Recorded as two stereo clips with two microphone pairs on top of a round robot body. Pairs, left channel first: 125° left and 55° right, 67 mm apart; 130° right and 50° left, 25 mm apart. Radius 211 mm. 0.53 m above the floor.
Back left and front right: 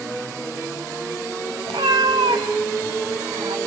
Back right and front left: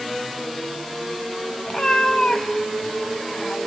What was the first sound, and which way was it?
A cat meowing, 65° right.